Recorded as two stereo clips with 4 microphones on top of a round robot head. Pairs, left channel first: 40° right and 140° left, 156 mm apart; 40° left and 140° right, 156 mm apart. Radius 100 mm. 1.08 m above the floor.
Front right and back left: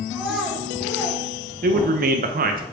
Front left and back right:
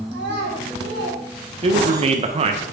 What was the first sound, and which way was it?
A child speaking, 130° right.